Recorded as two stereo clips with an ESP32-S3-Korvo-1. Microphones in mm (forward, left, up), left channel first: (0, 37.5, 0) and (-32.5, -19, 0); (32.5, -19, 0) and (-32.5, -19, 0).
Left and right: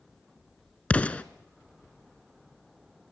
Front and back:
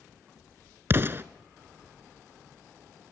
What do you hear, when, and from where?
0.9 s an explosion: 130° left, 0.6 m